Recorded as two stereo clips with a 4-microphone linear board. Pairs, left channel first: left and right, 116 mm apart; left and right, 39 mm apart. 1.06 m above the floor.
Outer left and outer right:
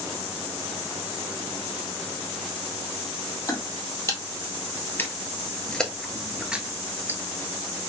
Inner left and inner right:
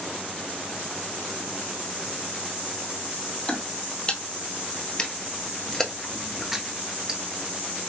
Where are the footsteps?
25° left (ahead or behind), 1.9 m; by 7.2 s 20° right (ahead or behind), 1.1 m.